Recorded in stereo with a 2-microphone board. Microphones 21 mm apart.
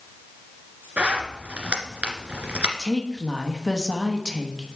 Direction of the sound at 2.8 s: Centre (ahead or behind).